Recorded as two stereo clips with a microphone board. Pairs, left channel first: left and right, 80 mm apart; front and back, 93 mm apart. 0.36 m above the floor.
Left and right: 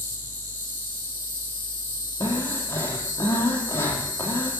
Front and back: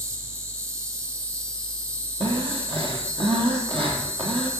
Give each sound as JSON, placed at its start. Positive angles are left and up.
{"t": 0.0, "sound": "an insect", "azimuth_deg": 140, "distance_m": 3.0}
{"t": 2.2, "sound": "breathing", "azimuth_deg": 150, "distance_m": 3.0}